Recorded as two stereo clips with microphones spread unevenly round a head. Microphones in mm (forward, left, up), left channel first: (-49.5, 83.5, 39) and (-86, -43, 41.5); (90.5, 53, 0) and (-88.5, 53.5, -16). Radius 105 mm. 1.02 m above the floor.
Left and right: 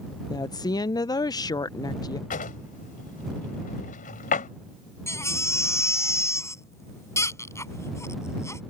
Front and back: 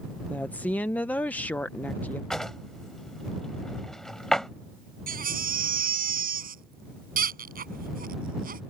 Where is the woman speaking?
85° left.